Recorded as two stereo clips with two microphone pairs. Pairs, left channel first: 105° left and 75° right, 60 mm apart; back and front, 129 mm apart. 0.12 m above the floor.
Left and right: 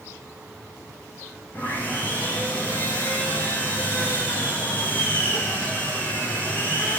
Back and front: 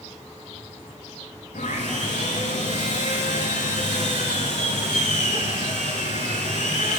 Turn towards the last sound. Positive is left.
turn(degrees=165)